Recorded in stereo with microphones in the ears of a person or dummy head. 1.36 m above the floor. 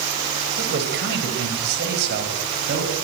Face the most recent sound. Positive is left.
turn(degrees=-55)  # may be behind; listen again after turning